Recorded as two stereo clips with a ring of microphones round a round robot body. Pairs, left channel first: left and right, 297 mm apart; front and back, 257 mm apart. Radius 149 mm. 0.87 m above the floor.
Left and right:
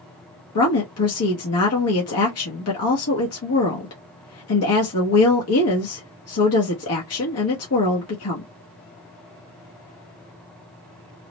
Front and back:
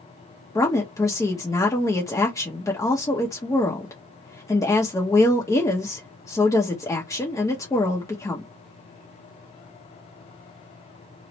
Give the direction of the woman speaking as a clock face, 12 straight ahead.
9 o'clock.